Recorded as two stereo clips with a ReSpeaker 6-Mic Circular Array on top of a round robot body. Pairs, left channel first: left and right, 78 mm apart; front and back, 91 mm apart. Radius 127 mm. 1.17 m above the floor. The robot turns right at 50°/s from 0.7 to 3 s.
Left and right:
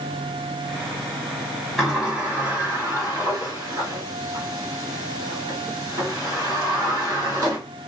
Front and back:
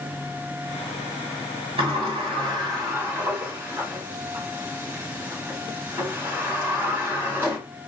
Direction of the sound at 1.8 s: Straight behind.